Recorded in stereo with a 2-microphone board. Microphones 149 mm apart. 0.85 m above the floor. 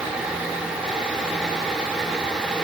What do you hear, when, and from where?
Only background noise.